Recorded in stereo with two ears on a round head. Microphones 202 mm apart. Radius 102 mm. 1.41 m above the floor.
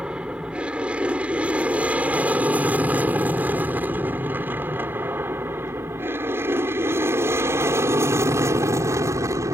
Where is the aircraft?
5° right (ahead or behind); by 9.6 s 15° right (ahead or behind).